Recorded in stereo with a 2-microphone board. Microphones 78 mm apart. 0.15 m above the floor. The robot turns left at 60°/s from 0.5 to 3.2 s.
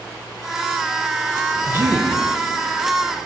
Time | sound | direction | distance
1.7 | a man speaking | 30° right (ahead or behind) | 1.2 m